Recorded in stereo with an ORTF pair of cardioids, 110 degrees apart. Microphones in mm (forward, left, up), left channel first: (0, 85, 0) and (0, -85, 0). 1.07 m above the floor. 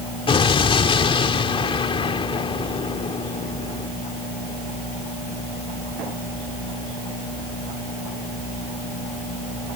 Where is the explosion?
35° left.